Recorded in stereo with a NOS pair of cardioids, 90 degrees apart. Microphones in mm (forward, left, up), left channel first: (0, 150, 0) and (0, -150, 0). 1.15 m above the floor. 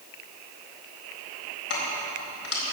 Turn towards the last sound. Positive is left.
turn(degrees=50)